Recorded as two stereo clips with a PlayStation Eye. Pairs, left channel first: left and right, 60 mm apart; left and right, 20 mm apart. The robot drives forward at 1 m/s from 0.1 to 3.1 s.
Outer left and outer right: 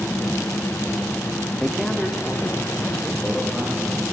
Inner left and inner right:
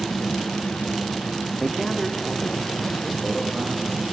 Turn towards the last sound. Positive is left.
turn(degrees=5)  # may be behind; listen again after turning